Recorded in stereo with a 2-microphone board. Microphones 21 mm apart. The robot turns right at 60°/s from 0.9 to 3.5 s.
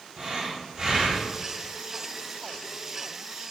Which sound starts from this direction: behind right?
Breathing, at 0.2 s.